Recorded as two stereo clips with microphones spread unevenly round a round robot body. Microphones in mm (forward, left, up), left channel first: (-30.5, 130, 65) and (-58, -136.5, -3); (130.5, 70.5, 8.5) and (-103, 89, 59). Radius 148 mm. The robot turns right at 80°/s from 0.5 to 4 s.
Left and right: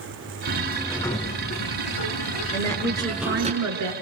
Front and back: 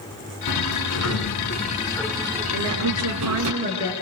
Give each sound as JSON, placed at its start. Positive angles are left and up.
{"t": 0.5, "sound": "a sliding door", "azimuth_deg": -40, "distance_m": 3.0}
{"t": 2.5, "sound": "a woman speaking", "azimuth_deg": 150, "distance_m": 5.0}